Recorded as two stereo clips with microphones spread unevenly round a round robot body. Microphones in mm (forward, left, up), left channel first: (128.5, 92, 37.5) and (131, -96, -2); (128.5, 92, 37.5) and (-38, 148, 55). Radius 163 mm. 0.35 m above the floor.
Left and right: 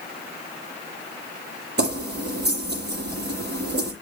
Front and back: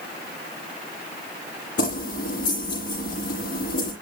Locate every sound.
1.8 s keys jangling: 60° right, 7.5 m